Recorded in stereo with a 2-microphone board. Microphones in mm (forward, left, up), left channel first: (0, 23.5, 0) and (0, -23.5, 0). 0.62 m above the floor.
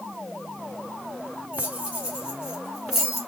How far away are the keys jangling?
About 1.9 m.